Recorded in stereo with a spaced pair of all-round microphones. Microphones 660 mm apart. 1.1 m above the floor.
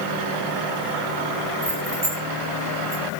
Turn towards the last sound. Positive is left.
turn(degrees=-70)  # may be behind; listen again after turning